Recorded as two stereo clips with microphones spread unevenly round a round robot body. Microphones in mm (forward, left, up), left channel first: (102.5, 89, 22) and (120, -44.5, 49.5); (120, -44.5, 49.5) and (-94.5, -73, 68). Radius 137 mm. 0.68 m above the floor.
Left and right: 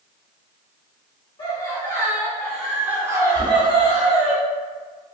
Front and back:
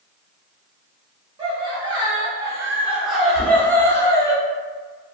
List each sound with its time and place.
1.4 s laughter: 125° left, 1.2 m; by 4.3 s 55° right, 1.2 m
3.4 s knocking: 140° left, 1.2 m